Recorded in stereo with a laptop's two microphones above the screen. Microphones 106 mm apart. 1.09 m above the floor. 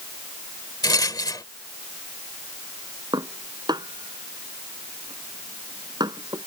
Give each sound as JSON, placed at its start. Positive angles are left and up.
{"t": 0.8, "sound": "a rattle", "side_deg": 40}
{"t": 3.1, "sound": "dishes clattering", "side_deg": -40}